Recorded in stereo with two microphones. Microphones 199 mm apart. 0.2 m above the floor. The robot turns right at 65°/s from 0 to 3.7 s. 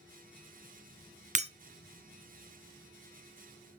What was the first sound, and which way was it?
Breaking glass, 40° right (ahead or behind).